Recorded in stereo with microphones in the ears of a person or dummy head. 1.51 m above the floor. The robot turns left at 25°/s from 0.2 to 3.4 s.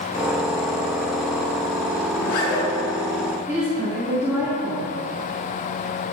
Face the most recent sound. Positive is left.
turn(degrees=-10)  # may be behind; listen again after turning